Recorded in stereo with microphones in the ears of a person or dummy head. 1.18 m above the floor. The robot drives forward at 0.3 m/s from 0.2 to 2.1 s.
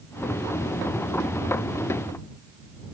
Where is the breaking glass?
No breaking glass in this recording.